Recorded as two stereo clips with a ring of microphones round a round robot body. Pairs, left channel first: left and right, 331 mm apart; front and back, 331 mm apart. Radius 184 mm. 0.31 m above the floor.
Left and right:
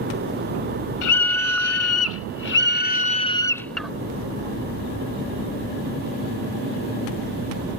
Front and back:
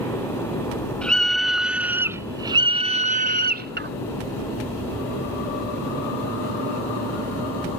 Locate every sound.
1.0 s a scream: 85° left; by 3.9 s 175° right